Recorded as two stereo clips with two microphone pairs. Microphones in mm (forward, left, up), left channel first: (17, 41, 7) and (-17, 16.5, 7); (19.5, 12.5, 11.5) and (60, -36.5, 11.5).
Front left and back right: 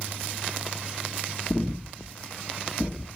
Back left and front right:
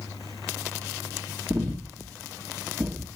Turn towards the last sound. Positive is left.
turn(degrees=-20)